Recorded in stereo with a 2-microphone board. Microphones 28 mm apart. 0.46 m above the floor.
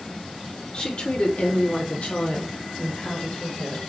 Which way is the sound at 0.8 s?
35° left (ahead or behind).